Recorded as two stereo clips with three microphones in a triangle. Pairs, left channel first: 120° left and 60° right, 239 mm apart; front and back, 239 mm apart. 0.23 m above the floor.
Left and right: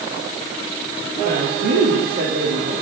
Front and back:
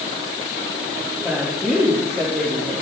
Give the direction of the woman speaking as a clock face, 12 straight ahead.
3 o'clock.